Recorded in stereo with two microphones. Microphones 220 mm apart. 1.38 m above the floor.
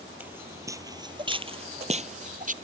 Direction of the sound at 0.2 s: 5° right (ahead or behind).